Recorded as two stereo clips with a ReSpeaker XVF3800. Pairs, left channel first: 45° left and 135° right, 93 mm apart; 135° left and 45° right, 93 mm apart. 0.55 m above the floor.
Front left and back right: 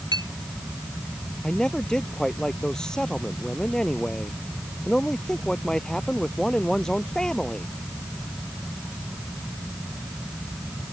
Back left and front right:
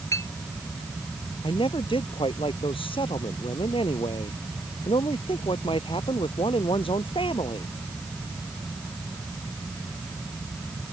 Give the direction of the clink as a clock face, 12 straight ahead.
6 o'clock.